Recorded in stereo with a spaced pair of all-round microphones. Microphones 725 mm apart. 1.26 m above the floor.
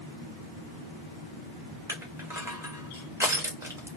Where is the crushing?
5° right (ahead or behind), 0.8 m.